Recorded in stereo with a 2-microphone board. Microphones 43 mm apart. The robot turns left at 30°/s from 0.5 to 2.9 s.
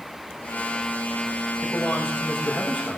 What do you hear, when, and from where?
1.6 s a man speaking: 75° left, 8.5 m; by 3.0 s 40° left, 8.5 m